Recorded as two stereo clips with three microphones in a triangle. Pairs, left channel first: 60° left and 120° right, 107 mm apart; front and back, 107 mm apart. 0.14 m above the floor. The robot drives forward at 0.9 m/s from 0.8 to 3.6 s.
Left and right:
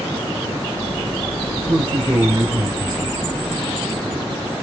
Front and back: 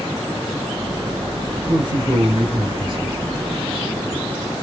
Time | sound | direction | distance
1.6 | a man speaking | 145° right | 2.5 m